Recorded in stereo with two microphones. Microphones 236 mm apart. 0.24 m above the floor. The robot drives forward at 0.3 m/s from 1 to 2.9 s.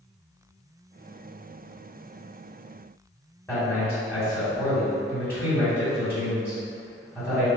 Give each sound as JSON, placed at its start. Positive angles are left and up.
{"t": 3.5, "sound": "a man speaking", "side_deg": 10, "distance_m": 2.0}